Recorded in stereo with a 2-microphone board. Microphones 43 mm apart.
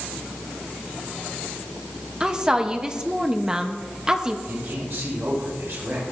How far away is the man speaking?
About 6.5 m.